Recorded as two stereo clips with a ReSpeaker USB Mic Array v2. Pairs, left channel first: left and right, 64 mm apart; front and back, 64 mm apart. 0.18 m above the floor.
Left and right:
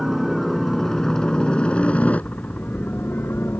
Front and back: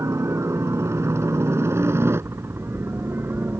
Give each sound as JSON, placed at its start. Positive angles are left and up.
{"t": 0.0, "sound": "a helicopter", "azimuth_deg": 180}